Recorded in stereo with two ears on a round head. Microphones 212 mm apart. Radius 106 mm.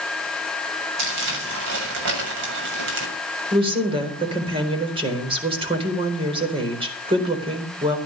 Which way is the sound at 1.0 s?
55° right (ahead or behind).